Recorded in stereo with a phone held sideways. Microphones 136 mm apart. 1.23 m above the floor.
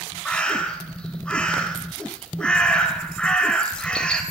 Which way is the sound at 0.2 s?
10° left (ahead or behind).